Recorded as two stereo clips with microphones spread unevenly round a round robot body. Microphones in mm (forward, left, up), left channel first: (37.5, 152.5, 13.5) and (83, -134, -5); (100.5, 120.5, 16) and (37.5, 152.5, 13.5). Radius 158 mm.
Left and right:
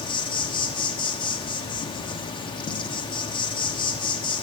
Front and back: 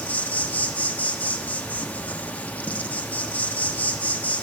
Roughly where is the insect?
Ahead left.